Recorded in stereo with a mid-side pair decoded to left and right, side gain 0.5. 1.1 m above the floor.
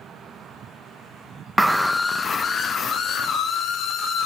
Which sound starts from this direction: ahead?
A scream, at 1.6 s.